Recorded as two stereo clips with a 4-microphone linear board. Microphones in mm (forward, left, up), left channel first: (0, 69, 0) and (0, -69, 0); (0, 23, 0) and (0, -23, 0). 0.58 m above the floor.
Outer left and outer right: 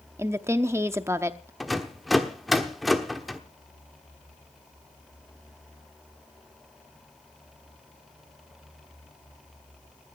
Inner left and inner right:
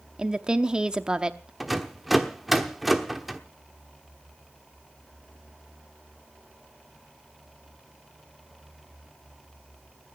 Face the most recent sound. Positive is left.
turn(degrees=0)  # may be behind; listen again after turning